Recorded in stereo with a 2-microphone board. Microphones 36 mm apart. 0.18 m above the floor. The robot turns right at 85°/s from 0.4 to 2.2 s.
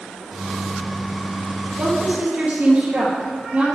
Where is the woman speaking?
75° right, 4.5 m; by 3.8 s 40° right, 4.5 m.